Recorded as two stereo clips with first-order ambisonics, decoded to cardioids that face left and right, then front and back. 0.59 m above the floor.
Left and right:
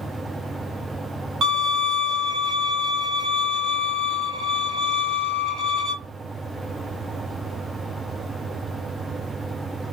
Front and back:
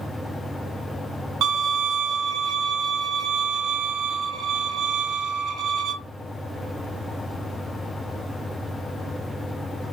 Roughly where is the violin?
Behind right.